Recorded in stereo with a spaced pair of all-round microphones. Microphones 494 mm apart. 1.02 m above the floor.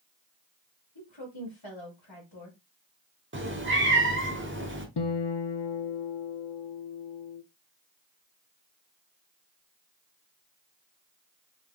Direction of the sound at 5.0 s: 60° left (ahead or behind).